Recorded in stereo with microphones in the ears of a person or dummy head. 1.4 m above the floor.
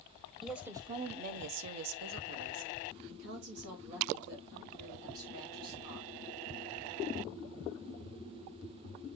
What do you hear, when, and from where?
0.4 s a woman speaking: centre (ahead or behind), 0.9 m; by 6.1 s 60° right (ahead or behind), 4.5 m